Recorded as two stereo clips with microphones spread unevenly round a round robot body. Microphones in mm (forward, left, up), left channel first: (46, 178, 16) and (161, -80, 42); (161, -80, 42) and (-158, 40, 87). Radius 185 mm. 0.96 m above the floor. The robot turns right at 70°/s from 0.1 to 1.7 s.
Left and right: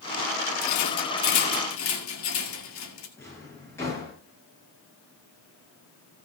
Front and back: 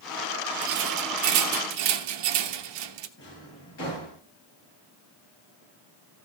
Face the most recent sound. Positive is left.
turn(degrees=35)